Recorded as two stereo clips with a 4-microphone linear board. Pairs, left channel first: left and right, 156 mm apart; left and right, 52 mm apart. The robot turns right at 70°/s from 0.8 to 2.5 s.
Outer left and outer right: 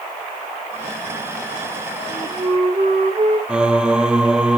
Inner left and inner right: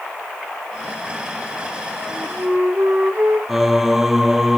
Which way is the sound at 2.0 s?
175° right.